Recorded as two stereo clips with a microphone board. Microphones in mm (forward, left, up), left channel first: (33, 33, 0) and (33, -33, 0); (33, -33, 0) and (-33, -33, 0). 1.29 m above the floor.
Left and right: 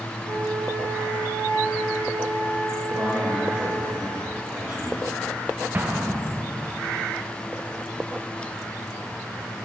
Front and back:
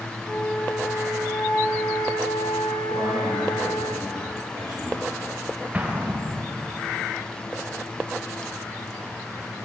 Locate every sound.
0.2 s a flute: 70° right, 1.8 m
2.9 s a man speaking: 150° right, 1.7 m
5.7 s an explosion: 125° right, 0.5 m